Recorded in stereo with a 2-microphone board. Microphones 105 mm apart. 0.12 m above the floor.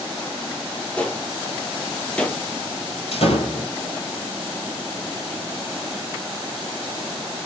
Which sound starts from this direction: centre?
A gunshot, at 1.0 s.